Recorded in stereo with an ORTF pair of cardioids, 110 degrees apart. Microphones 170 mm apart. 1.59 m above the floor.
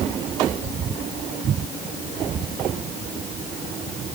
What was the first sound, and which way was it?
Only background noise.